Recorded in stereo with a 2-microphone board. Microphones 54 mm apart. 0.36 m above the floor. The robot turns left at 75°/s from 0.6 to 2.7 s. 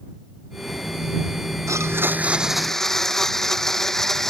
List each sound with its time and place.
1.7 s a blender: 110° right; by 4.3 s 175° left